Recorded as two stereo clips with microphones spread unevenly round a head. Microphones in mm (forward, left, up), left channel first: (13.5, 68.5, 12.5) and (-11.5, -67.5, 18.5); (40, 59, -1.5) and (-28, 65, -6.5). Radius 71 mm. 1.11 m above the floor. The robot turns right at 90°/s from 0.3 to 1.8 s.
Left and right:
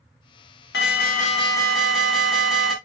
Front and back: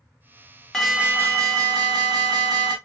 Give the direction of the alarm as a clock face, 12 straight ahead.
9 o'clock.